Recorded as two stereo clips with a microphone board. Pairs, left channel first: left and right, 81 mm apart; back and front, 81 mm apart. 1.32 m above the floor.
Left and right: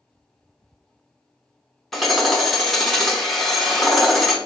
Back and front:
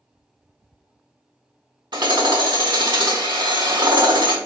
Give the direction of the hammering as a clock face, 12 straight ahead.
12 o'clock.